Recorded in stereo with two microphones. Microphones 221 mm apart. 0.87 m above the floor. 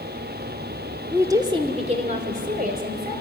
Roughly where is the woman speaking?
Centre.